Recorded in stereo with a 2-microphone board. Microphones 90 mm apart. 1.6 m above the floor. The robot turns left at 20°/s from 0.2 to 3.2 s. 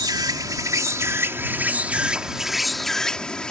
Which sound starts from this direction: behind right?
An insect, at 0.0 s.